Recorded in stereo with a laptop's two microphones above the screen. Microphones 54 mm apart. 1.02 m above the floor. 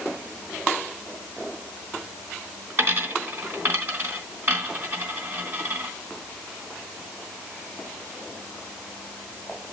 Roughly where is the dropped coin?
Right.